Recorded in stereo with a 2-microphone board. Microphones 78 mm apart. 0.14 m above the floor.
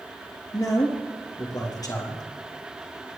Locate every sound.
0.5 s a man speaking: 55° left (ahead or behind), 3 m